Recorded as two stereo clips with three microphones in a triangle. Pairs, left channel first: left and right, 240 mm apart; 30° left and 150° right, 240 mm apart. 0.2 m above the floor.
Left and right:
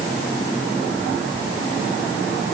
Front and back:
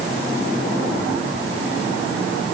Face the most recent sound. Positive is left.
No sound to turn to.